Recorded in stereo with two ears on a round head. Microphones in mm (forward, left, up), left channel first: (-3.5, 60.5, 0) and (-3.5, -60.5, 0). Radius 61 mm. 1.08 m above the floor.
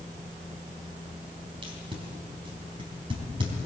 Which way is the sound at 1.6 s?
40° right (ahead or behind).